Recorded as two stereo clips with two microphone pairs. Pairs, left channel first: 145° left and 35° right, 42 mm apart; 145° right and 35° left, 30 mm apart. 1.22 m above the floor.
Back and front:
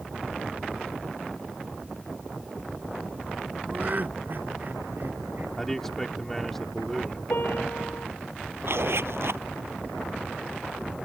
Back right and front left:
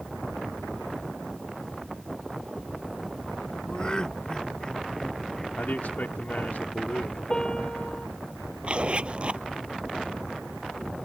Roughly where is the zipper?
Ahead.